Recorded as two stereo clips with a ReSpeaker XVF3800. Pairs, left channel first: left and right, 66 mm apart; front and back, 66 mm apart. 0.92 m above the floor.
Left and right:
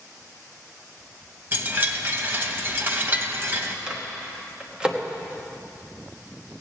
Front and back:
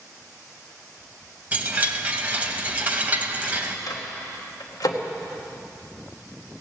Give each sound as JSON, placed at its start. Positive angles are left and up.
{"t": 1.5, "sound": "a chime", "azimuth_deg": -125, "distance_m": 0.9}
{"t": 3.9, "sound": "a microwave", "azimuth_deg": -15, "distance_m": 1.3}